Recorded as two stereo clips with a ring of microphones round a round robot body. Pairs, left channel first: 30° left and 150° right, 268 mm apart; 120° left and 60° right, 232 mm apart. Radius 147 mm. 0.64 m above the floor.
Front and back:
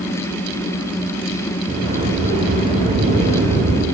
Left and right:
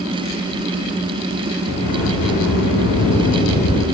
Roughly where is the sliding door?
Behind left.